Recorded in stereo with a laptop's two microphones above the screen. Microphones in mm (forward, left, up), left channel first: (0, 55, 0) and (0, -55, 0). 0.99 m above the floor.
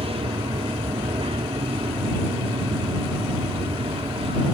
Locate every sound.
0.0 s an aircraft: 60° right (ahead or behind)